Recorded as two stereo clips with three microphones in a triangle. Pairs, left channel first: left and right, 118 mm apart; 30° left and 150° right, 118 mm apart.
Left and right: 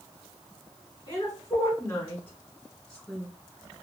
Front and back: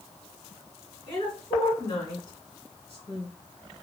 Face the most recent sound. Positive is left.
turn(degrees=-5)